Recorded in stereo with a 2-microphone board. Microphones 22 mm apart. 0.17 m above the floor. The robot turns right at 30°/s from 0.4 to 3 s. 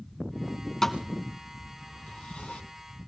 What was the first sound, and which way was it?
A thud, 20° left (ahead or behind).